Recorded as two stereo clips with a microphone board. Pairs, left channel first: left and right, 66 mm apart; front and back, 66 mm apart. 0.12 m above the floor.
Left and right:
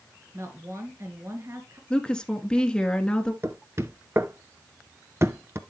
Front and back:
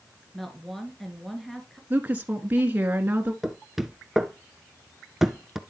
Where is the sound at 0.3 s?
85° right, 2.0 m.